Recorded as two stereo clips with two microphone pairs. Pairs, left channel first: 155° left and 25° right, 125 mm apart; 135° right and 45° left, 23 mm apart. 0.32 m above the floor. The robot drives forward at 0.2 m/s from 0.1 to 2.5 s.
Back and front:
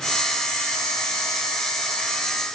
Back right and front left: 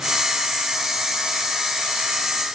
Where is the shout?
I don't hear a shout.